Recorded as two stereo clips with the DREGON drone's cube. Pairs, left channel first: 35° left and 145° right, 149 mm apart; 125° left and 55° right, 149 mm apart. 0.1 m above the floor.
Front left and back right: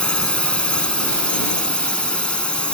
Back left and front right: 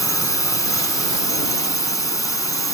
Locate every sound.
0.0 s a drone: 105° left